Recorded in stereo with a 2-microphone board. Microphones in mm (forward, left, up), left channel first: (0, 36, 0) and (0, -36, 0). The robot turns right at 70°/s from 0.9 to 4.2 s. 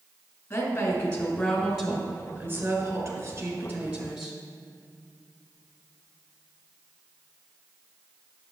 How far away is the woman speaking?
About 1.7 m.